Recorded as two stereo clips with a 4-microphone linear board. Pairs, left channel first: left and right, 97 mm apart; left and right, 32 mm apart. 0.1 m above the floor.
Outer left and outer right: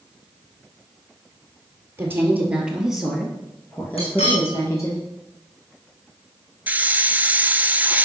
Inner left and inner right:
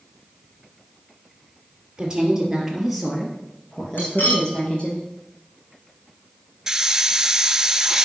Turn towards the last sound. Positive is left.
turn(degrees=-20)  # may be behind; listen again after turning